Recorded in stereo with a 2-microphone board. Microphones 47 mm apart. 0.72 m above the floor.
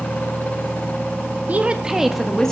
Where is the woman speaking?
35° right (ahead or behind), 1.3 m; by 2.5 s 10° left (ahead or behind), 1.6 m.